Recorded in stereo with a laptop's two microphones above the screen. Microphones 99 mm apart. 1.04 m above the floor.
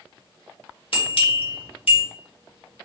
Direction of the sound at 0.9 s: 65° left (ahead or behind).